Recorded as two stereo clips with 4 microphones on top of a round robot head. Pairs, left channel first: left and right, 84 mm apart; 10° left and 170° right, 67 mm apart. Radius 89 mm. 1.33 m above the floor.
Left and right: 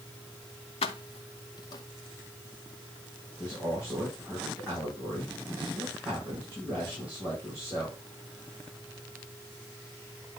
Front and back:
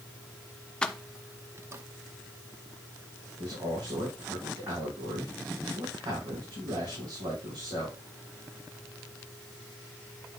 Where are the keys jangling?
85° left, 0.6 m; by 1.8 s 145° left, 0.9 m.